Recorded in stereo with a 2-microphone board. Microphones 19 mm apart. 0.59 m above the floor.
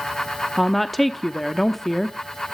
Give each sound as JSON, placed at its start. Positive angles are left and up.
{"t": 0.6, "sound": "a woman speaking", "side_deg": 10, "distance_m": 0.8}